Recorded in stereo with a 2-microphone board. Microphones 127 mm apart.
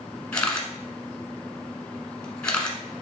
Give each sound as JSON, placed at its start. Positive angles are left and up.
{"t": 0.3, "sound": "a camera shutter", "side_deg": 10, "distance_m": 1.1}